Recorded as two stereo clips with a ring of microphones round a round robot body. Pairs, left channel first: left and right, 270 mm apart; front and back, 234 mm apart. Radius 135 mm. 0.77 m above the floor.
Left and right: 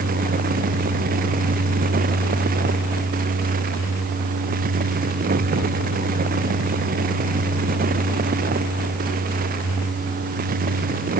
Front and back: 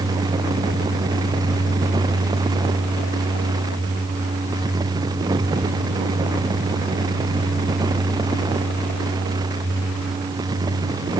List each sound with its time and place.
Only background noise.